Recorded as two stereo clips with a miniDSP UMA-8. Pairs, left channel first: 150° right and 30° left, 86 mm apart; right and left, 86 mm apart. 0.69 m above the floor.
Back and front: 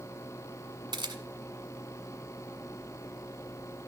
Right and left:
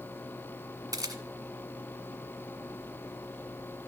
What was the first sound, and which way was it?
A camera shutter, 50° left.